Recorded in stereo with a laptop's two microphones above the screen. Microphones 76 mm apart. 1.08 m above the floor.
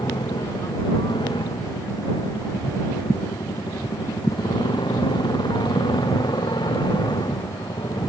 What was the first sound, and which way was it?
A motorcycle, 80° left.